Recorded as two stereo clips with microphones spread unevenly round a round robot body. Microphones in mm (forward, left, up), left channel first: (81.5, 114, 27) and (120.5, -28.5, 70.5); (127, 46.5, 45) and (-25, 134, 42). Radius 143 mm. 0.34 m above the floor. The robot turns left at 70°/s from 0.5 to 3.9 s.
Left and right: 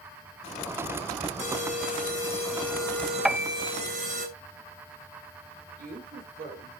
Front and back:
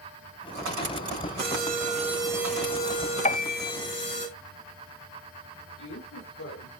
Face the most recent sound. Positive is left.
turn(degrees=-50)